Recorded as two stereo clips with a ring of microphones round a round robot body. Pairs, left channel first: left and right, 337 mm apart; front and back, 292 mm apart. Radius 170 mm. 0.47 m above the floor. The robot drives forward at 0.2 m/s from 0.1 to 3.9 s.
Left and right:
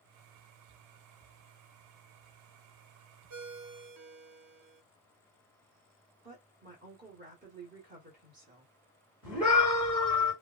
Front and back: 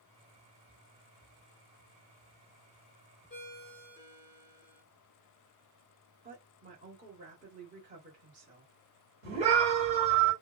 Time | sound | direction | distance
3.3 | a ringtone | 60° right | 0.8 m
6.2 | a woman speaking | 135° right | 1.1 m
9.2 | a scream | 175° right | 1.8 m